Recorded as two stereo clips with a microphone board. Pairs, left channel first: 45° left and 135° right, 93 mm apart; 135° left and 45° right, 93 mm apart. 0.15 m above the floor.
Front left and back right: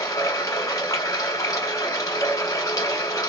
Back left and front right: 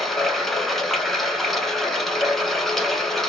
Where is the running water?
50° left, 0.9 m.